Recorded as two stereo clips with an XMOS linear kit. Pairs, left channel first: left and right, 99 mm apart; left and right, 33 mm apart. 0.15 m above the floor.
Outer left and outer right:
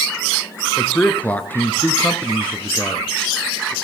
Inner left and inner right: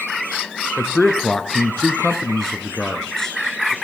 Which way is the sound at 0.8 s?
15° left (ahead or behind).